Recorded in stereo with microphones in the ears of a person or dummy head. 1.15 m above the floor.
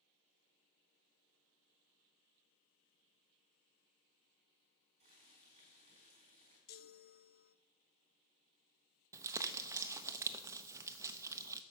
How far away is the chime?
About 0.5 m.